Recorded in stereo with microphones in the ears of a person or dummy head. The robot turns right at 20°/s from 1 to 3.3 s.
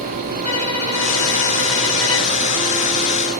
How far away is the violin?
About 4 m.